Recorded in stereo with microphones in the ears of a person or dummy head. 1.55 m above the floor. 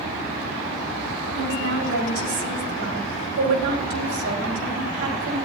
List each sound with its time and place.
1.4 s a woman speaking: 70° right (ahead or behind), 5 m